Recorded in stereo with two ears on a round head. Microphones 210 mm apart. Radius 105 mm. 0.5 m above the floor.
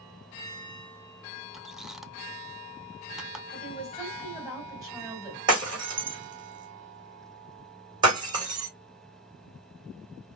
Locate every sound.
1.5 s a squeak: centre (ahead or behind), 0.6 m
3.5 s a woman speaking: 15° right (ahead or behind), 4 m
5.5 s breaking glass: 20° right (ahead or behind), 3.5 m